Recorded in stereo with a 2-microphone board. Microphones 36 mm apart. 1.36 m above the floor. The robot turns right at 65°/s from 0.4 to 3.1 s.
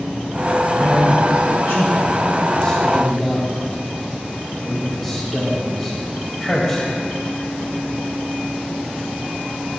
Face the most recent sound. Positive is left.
turn(degrees=5)  # may be behind; listen again after turning